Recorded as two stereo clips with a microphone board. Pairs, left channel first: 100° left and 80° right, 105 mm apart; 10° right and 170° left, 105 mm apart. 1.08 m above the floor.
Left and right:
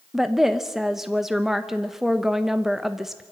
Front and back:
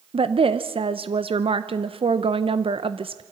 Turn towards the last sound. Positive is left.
turn(degrees=-165)